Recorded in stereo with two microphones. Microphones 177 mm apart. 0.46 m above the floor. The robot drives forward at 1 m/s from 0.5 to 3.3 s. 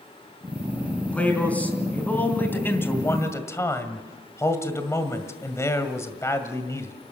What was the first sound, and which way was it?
A man speaking, 10° left (ahead or behind).